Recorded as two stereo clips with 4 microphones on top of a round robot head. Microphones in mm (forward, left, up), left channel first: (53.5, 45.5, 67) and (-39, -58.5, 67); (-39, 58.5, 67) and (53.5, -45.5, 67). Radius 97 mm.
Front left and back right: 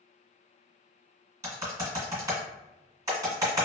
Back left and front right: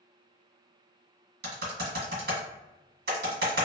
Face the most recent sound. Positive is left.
turn(degrees=-65)